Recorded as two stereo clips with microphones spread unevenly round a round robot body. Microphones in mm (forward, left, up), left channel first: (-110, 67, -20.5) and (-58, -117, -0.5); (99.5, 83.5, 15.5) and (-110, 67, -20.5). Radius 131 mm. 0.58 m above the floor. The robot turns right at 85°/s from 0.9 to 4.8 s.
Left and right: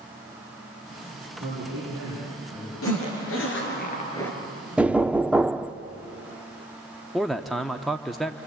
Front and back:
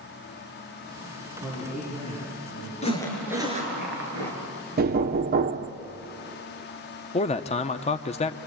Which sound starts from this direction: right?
A man speaking, at 1.4 s.